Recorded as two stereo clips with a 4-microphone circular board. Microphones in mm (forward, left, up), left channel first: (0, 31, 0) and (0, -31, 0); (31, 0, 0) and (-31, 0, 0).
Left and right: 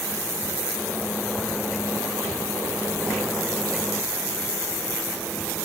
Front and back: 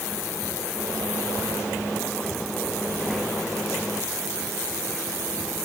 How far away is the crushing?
No crushing in this recording.